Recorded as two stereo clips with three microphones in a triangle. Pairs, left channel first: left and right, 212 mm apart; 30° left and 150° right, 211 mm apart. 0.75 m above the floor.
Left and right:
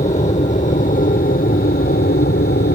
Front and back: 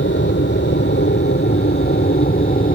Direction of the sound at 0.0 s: 40° left.